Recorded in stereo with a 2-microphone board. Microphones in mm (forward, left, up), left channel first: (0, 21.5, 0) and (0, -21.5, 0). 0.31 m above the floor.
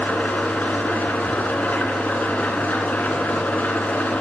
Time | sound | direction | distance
0.0 | an engine running | 45° left (ahead or behind) | 1.9 m